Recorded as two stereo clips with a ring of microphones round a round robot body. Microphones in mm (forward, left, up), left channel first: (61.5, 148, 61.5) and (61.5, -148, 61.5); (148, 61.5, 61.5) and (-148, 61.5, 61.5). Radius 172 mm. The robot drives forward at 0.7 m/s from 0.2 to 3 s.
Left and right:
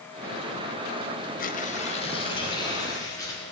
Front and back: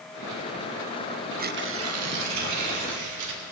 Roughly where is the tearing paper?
Behind left.